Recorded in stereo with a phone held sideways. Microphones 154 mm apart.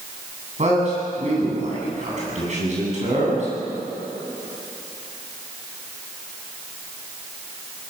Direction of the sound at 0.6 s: 50° right (ahead or behind).